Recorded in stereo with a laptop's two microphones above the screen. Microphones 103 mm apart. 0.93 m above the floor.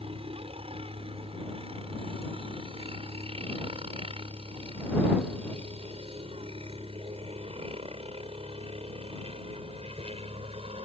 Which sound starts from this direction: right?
A helicopter, at 0.0 s.